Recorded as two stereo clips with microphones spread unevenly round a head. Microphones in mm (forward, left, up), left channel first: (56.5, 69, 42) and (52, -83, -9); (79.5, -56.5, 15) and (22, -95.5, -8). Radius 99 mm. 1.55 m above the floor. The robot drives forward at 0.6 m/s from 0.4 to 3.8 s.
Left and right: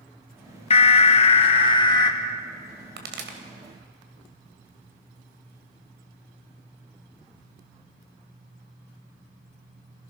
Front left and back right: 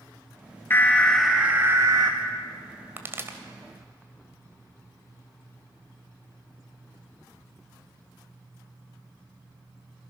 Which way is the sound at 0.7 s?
75° left.